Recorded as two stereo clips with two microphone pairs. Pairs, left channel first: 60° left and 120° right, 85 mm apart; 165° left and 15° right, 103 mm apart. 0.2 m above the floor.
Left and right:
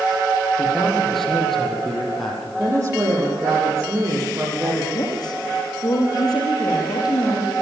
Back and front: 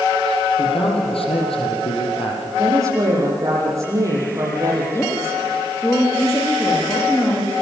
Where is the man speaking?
145° left, 6 m.